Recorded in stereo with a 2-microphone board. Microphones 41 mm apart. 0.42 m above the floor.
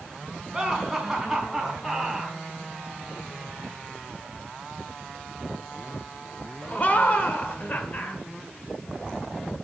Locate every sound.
0.5 s laughter: 15° right (ahead or behind), 3.5 m; by 8.2 s 50° left (ahead or behind), 1.6 m